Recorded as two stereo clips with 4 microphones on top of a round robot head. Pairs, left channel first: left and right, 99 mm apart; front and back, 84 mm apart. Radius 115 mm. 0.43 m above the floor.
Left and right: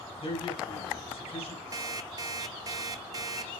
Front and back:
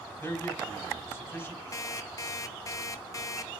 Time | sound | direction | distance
0.2 | a man speaking | 65° left | 4.5 m
1.7 | an alarm clock | 45° right | 0.9 m